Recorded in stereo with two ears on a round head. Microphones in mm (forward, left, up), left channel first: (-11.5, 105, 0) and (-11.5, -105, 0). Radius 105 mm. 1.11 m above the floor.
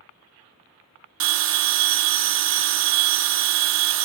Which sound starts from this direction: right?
A bell, at 1.2 s.